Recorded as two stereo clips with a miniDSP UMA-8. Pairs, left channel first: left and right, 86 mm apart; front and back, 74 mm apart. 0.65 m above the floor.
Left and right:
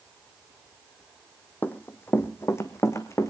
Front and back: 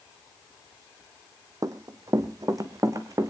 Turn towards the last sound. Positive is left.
turn(degrees=140)